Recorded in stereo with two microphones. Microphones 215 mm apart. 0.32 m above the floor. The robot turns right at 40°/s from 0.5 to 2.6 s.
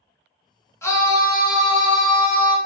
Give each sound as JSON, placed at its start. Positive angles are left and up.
{"t": 0.8, "sound": "a scream", "side_deg": 15, "distance_m": 0.9}